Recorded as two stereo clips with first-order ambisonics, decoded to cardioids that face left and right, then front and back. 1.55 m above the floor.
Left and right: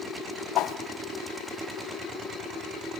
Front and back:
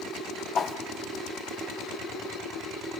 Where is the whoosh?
60° left, 0.9 m.